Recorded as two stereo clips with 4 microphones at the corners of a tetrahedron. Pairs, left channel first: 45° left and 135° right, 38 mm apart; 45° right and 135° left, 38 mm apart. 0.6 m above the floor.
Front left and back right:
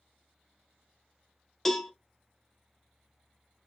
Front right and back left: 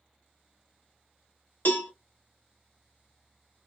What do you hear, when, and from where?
1.6 s a cowbell: 35° right, 0.6 m